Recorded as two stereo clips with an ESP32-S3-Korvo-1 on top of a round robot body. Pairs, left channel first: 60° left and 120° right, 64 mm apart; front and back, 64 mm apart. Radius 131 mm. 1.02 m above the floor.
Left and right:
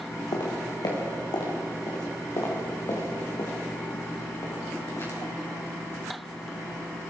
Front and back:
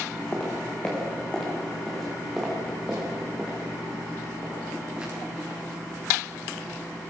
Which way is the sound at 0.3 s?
65° left.